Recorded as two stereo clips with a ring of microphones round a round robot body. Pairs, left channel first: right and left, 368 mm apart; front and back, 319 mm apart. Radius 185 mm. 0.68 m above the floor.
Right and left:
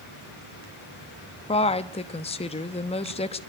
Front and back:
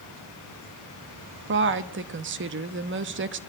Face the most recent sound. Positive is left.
turn(degrees=-155)